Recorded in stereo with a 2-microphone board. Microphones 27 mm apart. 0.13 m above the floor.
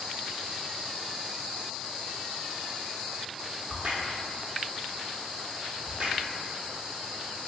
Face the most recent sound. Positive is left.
turn(degrees=-40)  # may be behind; listen again after turning